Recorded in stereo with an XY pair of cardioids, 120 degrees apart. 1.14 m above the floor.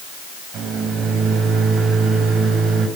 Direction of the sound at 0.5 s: 65° right.